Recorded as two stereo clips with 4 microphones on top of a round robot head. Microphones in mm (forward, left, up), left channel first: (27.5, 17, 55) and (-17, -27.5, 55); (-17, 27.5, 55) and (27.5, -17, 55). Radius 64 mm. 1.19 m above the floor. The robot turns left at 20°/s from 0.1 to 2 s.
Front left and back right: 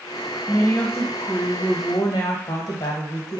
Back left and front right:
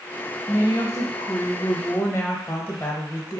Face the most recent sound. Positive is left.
turn(degrees=75)